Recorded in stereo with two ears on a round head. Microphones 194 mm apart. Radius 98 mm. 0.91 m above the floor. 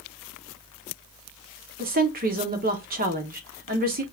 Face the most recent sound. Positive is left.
turn(degrees=-40)  # may be behind; listen again after turning